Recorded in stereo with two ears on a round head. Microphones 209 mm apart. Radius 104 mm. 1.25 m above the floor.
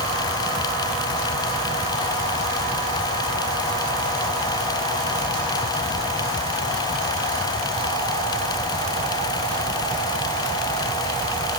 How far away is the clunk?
No clunk in this recording.